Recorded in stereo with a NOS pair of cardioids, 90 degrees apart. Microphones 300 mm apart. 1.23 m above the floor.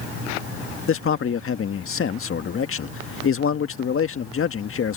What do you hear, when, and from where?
0.9 s a man speaking: 45° left